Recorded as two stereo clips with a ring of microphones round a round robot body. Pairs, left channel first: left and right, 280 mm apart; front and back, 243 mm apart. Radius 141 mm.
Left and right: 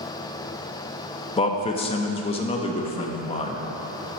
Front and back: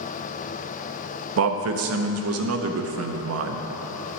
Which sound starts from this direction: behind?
A man speaking, at 1.4 s.